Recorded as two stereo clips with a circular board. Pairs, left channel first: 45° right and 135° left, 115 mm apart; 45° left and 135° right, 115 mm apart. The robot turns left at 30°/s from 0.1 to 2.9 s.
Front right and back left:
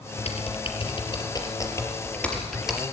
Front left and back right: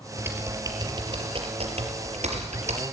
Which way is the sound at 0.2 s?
60° right.